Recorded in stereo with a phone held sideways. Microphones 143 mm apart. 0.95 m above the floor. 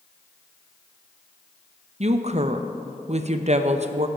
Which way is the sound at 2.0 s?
50° right (ahead or behind).